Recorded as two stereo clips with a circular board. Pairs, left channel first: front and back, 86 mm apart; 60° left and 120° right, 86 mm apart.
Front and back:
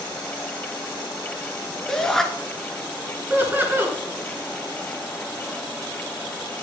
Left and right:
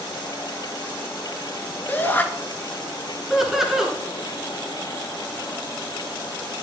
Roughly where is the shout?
Left.